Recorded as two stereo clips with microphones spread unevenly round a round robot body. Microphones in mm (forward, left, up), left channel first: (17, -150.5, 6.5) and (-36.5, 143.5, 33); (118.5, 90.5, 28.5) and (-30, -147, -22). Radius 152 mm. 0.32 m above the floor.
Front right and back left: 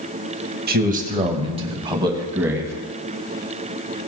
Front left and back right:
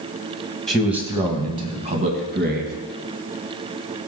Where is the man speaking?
155° left, 1.5 m; by 2.7 s 175° right, 2.5 m.